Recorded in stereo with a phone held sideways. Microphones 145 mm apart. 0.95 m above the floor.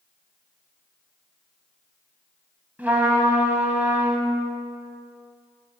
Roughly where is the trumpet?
Centre.